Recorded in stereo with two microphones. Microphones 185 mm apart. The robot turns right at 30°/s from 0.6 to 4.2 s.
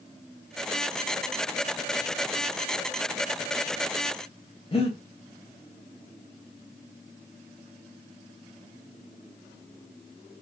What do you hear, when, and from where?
4.7 s breathing: 30° left (ahead or behind), 0.7 m